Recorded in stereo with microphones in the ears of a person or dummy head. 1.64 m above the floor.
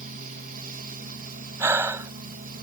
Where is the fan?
40° right (ahead or behind).